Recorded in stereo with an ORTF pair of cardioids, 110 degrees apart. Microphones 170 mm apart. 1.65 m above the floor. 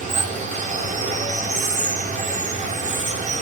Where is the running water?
45° right, 4 m.